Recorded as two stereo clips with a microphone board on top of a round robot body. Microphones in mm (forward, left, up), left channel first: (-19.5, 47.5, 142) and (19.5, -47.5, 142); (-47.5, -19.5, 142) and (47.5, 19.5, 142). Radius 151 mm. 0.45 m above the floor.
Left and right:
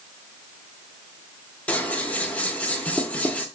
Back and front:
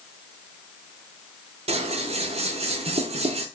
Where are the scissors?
35° left, 0.7 m.